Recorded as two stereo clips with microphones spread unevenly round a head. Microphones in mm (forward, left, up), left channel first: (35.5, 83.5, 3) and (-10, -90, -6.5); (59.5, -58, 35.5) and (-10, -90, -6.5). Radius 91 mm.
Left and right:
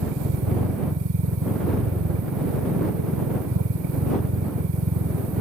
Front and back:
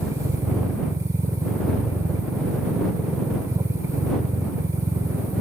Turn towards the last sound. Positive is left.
turn(degrees=-100)